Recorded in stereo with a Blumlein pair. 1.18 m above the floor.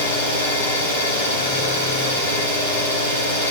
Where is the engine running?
65° left, 7.5 m.